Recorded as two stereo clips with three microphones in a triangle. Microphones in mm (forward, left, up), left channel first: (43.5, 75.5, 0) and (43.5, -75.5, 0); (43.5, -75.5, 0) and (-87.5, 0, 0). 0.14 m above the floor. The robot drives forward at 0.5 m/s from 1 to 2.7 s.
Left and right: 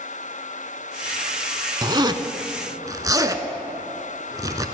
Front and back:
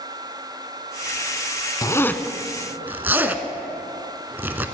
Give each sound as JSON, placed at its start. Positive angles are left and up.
{"t": 1.8, "sound": "a zipper", "azimuth_deg": -65, "distance_m": 0.6}